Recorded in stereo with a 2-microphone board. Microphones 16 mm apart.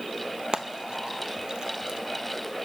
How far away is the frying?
About 0.5 m.